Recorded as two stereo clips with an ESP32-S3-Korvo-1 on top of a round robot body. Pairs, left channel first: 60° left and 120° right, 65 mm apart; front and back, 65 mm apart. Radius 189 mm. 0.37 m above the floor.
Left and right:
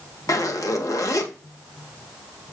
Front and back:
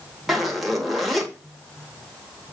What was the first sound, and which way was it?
A zipper, 90° left.